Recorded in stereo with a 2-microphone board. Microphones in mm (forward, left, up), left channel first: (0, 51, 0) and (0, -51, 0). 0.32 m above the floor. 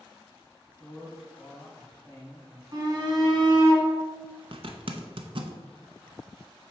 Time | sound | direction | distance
0.8 | a man speaking | 35° left (ahead or behind) | 1.8 m
2.7 | a shout | 40° right (ahead or behind) | 2.5 m
4.5 | a zipper | 60° right (ahead or behind) | 0.7 m